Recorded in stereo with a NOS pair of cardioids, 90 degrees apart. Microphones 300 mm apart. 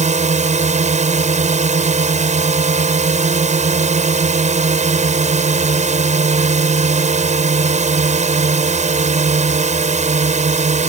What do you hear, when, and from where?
0.0 s a drone: 25° right